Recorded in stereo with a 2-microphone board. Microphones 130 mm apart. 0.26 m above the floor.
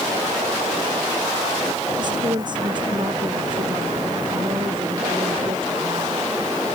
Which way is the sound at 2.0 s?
35° right (ahead or behind).